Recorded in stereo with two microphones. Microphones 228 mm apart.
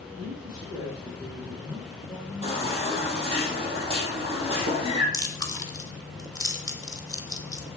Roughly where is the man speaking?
Right.